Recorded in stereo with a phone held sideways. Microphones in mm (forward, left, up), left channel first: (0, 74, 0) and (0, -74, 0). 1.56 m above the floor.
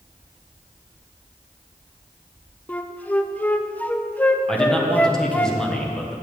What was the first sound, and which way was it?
A flute, 10° left (ahead or behind).